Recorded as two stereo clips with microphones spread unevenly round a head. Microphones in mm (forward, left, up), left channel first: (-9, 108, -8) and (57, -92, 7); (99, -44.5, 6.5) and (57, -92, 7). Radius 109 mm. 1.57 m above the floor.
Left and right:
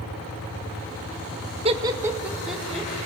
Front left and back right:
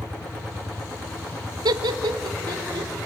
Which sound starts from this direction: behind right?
Laughter, at 1.6 s.